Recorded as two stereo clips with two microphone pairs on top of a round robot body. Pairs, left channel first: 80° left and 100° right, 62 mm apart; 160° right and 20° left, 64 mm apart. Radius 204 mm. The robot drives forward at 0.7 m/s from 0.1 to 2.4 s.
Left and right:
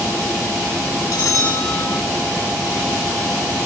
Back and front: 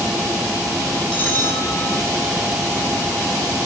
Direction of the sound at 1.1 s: 120° left.